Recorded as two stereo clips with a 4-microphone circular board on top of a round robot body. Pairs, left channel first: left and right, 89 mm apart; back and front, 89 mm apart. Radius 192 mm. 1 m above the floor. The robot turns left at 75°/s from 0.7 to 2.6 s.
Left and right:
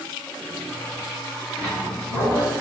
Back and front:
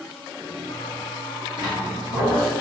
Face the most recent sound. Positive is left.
turn(degrees=-10)